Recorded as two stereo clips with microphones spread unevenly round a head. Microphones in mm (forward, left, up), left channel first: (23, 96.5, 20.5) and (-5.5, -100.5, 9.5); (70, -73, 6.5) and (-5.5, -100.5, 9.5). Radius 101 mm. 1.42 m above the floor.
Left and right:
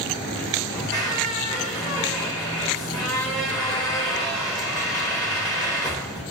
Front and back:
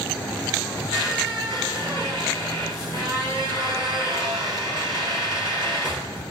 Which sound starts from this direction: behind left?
A squeak, at 0.7 s.